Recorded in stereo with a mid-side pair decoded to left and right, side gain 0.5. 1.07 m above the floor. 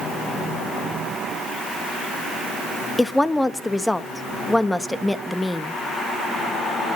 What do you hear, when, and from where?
3.0 s a woman speaking: 10° left, 1.4 m